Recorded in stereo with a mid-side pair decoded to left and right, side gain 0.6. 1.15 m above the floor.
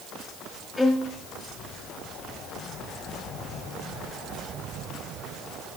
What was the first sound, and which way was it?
A violin, 15° left.